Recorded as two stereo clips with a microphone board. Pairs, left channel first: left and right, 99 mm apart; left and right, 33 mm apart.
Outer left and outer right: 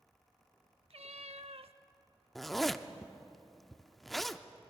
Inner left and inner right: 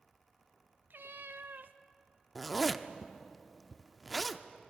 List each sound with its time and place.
0.9 s a cat meowing: 75° right (ahead or behind), 0.7 m
2.4 s a zipper: centre (ahead or behind), 0.7 m